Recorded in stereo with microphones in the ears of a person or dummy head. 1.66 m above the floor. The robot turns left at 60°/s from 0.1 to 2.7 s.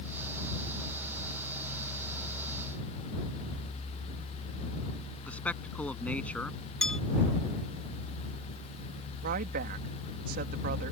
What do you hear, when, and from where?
5.3 s a man speaking: 10° left (ahead or behind)
6.8 s a bell: 5° left (ahead or behind)
9.2 s a woman speaking: 45° right (ahead or behind)